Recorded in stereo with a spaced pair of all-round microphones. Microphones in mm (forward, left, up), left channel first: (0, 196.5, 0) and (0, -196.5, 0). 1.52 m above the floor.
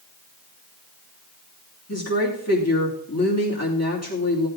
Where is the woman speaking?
40° left (ahead or behind), 3 m.